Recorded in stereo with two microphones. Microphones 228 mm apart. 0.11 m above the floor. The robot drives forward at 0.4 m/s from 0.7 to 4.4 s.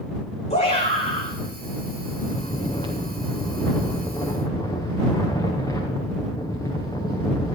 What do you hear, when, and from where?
0.5 s a shout: 30° left (ahead or behind), 7 m
2.2 s snoring: 20° left (ahead or behind), 2.5 m; by 7.6 s 15° left (ahead or behind), 3 m